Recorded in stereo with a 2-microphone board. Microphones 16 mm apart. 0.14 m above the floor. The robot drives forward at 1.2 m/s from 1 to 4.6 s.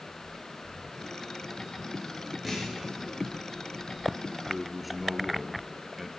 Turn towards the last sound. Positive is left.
turn(degrees=-5)  # may be behind; listen again after turning